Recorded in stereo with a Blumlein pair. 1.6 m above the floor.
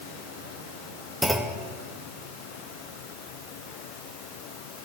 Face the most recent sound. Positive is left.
turn(degrees=0)